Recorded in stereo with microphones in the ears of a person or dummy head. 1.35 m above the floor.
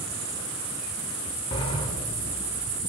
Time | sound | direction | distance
1.5 | a sliding door | 30° left (ahead or behind) | 1.3 m